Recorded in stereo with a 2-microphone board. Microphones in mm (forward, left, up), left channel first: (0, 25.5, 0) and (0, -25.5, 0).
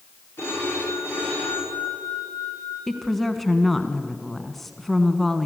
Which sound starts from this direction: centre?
A woman speaking, at 2.9 s.